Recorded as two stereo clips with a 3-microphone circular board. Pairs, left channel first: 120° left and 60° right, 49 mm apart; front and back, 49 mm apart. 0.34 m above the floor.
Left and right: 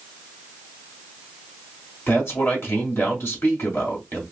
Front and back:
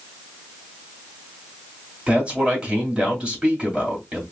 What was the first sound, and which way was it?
A man speaking, 120° left.